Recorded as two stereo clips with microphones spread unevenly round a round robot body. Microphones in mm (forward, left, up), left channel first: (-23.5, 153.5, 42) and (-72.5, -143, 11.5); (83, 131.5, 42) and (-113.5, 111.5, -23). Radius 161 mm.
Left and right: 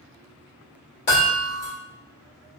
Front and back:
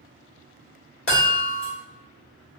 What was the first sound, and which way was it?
A chime, 25° left.